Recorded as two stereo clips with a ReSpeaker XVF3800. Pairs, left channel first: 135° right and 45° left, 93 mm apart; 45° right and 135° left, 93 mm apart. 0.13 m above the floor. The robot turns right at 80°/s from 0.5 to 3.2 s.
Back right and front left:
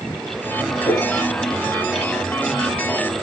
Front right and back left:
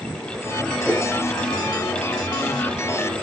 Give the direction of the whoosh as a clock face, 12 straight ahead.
5 o'clock.